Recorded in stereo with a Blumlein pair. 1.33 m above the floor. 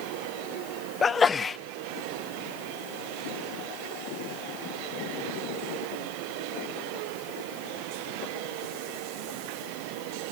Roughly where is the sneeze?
Ahead.